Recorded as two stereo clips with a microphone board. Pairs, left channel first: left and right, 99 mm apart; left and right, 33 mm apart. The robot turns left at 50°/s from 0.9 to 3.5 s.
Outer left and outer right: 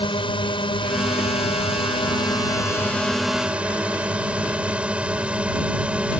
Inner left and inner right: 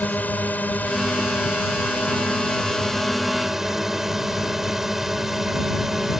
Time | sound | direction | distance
0.0 | a drone | 120° left | ?